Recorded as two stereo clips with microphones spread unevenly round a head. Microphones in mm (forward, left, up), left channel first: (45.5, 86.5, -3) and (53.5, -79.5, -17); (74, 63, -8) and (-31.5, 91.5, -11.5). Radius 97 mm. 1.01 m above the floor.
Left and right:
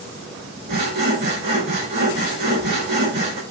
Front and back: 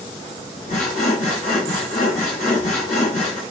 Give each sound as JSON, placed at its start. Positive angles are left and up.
{"t": 0.7, "sound": "sawing", "azimuth_deg": -65, "distance_m": 5.0}